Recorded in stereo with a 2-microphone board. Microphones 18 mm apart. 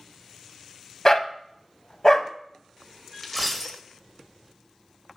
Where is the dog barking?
35° left (ahead or behind), 0.5 m.